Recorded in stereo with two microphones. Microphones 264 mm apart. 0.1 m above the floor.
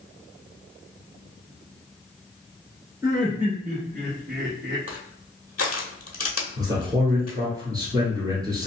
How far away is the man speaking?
About 1.6 m.